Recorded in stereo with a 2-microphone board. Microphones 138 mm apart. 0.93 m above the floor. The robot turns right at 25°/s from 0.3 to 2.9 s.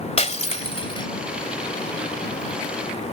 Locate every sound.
0.2 s breaking glass: 55° left (ahead or behind); by 1.1 s 35° left (ahead or behind)